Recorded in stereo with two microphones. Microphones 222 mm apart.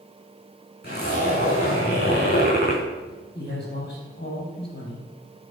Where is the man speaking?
45° left (ahead or behind), 3.5 m.